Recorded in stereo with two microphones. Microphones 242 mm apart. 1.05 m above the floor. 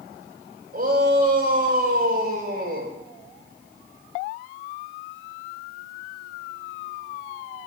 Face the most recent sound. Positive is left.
turn(degrees=-40)  # may be behind; listen again after turning